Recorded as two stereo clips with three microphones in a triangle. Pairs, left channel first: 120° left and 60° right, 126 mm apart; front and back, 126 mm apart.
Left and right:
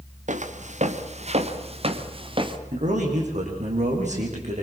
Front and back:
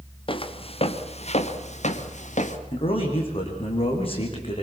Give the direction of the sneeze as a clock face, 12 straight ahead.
No sneeze in this recording.